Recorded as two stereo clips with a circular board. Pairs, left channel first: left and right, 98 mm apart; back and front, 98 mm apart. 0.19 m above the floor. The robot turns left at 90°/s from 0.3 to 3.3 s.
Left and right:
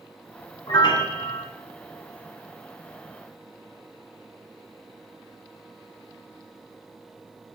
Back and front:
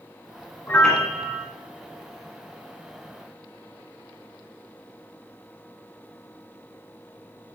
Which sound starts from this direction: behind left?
A piano, at 0.7 s.